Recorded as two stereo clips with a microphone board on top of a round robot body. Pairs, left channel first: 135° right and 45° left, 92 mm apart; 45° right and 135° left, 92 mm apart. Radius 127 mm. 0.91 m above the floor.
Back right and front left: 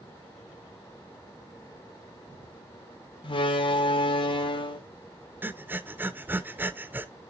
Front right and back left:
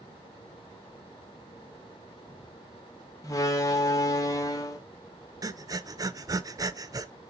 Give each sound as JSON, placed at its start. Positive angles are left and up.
{"t": 3.2, "sound": "a door slam", "azimuth_deg": -100, "distance_m": 1.1}
{"t": 5.4, "sound": "breathing", "azimuth_deg": 105, "distance_m": 0.8}